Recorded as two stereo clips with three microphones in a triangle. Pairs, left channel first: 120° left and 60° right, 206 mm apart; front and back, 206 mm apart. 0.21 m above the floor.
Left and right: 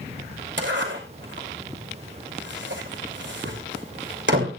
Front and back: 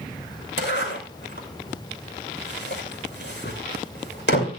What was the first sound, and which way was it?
A zipper, 30° right.